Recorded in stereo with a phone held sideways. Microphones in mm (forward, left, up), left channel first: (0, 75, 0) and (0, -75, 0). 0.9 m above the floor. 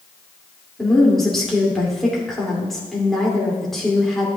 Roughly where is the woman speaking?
Centre.